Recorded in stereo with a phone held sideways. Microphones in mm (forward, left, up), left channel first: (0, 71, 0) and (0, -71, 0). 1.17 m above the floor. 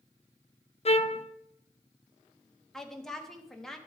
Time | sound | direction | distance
0.8 | a trumpet | 45° left (ahead or behind) | 0.5 m
2.7 | a woman speaking | 5° left (ahead or behind) | 1.3 m